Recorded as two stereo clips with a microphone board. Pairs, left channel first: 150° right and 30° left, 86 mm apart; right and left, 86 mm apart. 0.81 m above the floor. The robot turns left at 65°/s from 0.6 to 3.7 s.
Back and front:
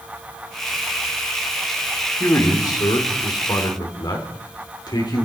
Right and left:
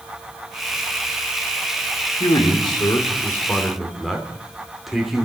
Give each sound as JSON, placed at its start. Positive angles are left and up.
{"t": 2.2, "sound": "a man speaking", "azimuth_deg": -85, "distance_m": 3.0}